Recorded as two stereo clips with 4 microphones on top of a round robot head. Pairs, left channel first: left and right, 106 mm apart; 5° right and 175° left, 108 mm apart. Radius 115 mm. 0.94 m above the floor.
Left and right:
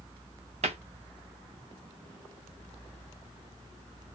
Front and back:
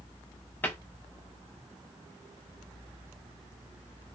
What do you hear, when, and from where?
0.6 s a cupboard door: 80° right, 0.6 m